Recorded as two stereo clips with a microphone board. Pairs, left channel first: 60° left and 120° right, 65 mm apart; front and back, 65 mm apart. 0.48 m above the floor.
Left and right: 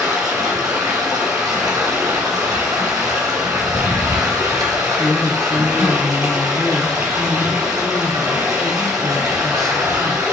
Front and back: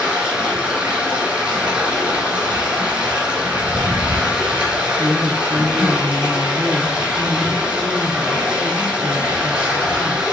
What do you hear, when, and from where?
0.0 s running water: 110° right, 3.5 m
4.9 s a woman speaking: 130° left, 0.8 m